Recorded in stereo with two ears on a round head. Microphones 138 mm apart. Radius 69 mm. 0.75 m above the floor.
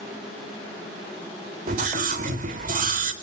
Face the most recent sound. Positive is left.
turn(degrees=-60)  # may be behind; listen again after turning